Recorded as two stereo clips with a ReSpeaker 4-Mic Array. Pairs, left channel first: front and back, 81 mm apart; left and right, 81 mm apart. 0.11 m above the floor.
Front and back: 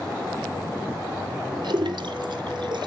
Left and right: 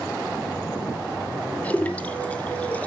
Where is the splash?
160° left, 1.1 m.